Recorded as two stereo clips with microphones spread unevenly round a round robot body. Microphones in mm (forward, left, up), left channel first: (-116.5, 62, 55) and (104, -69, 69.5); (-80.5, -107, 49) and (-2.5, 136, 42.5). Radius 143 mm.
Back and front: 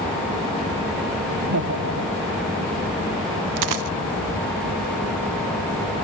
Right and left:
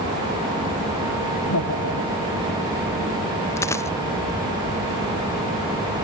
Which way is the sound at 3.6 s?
25° right.